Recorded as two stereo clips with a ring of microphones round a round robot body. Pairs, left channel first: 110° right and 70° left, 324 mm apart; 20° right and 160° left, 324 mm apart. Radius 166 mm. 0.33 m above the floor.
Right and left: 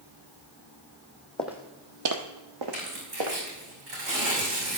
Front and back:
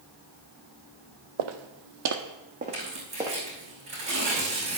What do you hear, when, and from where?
1.4 s footsteps: 160° left, 0.9 m; by 3.4 s 75° left, 2 m
2.7 s tearing paper: 85° left, 4.5 m